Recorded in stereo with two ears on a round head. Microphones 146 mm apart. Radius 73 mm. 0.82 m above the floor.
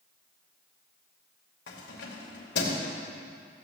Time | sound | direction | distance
1.7 | keys jangling | 80° left | 2.5 m